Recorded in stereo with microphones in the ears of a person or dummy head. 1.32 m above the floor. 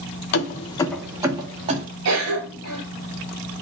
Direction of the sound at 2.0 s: 75° right (ahead or behind).